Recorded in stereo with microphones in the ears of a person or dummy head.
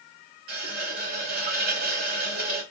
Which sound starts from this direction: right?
A running tap, at 0.5 s.